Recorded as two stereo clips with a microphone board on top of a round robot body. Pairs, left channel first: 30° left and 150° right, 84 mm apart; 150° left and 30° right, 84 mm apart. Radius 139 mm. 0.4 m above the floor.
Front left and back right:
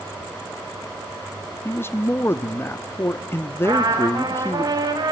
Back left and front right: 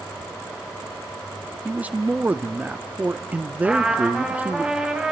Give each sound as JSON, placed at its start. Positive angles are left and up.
{"t": 1.6, "sound": "a man speaking", "azimuth_deg": 25, "distance_m": 0.9}
{"t": 3.6, "sound": "a trumpet", "azimuth_deg": -110, "distance_m": 3.0}